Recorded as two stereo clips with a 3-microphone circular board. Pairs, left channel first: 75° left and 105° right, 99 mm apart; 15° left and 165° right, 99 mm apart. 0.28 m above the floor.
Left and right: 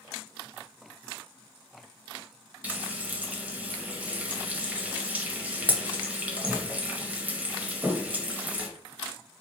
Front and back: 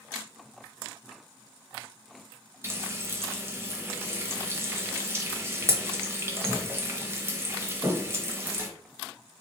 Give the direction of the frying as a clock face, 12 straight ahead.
5 o'clock.